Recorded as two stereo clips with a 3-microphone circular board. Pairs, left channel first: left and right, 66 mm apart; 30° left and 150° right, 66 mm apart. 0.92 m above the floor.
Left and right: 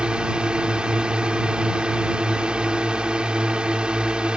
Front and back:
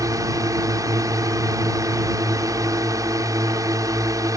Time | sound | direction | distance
0.0 | a drone | 165° right | ?